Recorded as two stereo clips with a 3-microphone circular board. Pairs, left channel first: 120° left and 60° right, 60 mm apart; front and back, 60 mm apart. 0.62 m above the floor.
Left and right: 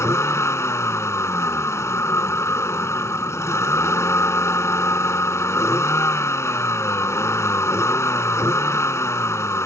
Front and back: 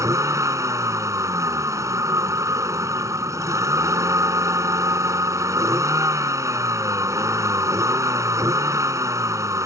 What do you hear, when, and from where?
0.0 s a vehicle: 155° left